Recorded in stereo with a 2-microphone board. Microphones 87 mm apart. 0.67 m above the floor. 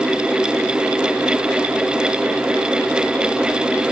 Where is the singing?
No singing in this recording.